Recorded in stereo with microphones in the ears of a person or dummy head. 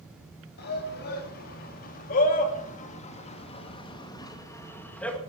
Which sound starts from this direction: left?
A shout, at 0.6 s.